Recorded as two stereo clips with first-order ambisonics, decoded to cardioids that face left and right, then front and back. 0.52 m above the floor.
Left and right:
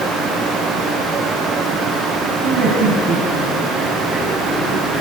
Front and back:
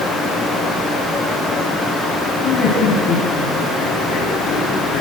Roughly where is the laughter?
Ahead right.